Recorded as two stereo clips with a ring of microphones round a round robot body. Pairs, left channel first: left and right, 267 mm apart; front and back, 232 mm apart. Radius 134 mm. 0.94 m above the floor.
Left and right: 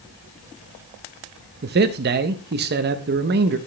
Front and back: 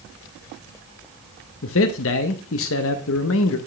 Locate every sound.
1.6 s a man speaking: 40° right, 0.6 m